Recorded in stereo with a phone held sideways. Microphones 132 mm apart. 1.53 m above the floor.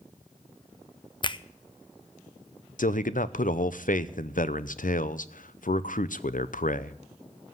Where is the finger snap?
35° left (ahead or behind), 0.6 m.